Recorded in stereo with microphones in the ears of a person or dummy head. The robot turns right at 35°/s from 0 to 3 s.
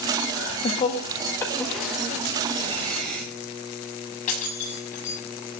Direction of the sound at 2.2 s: 60° right (ahead or behind).